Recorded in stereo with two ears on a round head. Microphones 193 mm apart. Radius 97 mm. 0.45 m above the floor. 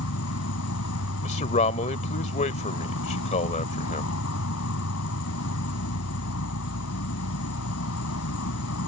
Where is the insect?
75° left (ahead or behind).